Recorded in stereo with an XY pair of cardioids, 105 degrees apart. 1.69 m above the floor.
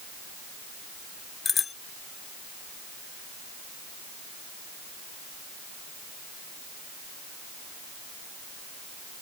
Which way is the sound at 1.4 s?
35° left.